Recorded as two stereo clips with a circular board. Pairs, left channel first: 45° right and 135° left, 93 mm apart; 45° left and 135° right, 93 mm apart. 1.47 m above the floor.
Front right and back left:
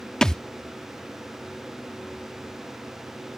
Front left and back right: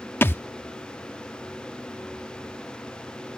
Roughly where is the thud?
Ahead left.